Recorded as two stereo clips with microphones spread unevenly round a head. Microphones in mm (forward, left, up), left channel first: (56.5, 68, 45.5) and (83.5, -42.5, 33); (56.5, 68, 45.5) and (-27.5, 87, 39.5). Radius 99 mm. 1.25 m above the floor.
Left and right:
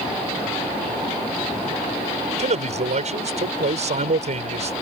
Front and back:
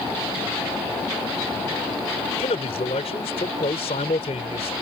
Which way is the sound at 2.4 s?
50° right.